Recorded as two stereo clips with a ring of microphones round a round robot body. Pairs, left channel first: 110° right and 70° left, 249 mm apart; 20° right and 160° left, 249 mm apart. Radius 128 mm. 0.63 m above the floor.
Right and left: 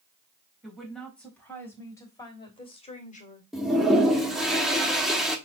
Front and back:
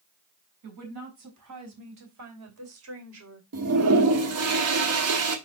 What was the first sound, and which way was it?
A woman speaking, 160° left.